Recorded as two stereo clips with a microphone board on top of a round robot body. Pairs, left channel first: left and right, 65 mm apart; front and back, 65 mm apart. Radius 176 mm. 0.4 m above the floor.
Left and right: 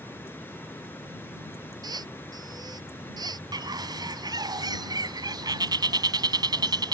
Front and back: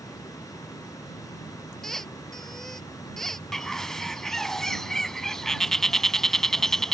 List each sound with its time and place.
0.0 s running water: 30° left
1.8 s a squeak: 85° right
3.5 s a bird: 85° right